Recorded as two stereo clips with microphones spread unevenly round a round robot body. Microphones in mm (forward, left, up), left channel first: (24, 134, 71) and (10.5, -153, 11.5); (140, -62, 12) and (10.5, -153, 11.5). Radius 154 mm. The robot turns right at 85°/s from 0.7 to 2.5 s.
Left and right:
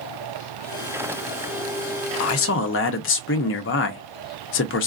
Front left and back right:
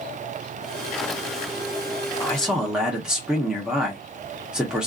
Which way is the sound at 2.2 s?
105° left.